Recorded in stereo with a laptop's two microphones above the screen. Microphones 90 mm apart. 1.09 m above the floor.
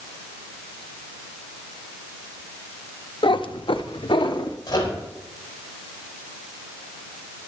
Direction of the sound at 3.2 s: 60° left (ahead or behind).